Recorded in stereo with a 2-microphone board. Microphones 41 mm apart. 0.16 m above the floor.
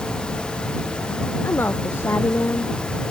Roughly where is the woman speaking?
Left.